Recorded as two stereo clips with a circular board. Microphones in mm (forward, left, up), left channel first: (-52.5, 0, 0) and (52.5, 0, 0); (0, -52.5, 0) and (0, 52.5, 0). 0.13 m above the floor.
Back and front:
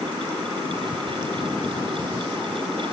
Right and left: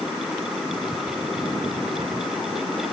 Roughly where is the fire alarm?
I don't hear a fire alarm.